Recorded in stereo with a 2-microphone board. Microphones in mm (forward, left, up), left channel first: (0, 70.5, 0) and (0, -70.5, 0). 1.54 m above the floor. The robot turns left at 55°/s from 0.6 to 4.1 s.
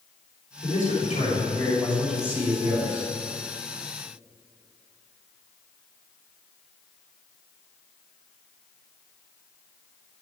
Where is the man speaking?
80° left, 4.5 m; by 3.1 s 55° right, 4.5 m.